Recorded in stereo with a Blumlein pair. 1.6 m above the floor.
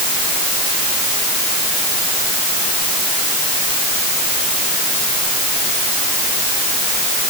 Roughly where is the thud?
I don't hear a thud.